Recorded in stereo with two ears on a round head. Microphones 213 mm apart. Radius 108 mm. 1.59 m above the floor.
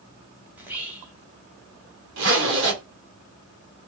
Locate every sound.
0.5 s whispering: 5° right (ahead or behind), 0.9 m
2.2 s a zipper: 60° right (ahead or behind), 1.2 m